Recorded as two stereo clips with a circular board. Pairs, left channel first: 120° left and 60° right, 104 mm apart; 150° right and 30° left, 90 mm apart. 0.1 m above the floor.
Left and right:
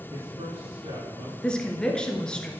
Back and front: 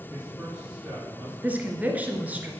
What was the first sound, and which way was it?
A man speaking, 50° right.